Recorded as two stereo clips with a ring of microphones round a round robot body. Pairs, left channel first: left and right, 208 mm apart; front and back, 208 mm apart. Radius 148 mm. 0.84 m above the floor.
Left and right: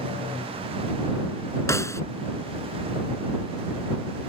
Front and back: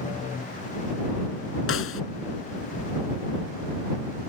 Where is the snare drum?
15° left.